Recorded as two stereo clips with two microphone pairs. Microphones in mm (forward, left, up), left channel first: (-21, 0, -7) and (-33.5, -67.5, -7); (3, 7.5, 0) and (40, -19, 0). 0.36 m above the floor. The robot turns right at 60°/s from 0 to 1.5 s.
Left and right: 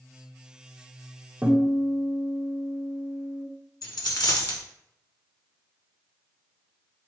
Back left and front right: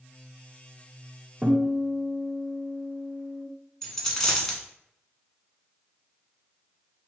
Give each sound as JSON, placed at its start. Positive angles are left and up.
{"t": 1.4, "sound": "a guitar", "azimuth_deg": -50, "distance_m": 1.5}
{"t": 3.8, "sound": "a dropped coin", "azimuth_deg": 65, "distance_m": 1.0}